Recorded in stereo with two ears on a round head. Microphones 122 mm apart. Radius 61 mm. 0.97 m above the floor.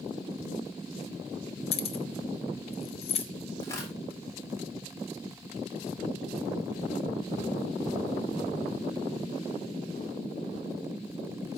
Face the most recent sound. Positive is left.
turn(degrees=20)  # may be behind; listen again after turning